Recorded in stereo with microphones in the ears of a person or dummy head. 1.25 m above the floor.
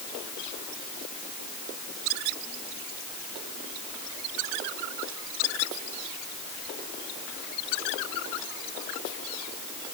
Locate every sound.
Only background noise.